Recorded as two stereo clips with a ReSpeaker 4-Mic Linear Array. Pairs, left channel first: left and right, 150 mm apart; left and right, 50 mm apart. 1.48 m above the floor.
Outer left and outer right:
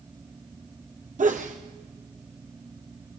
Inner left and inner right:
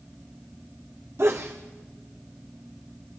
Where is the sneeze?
60° right (ahead or behind), 0.7 m.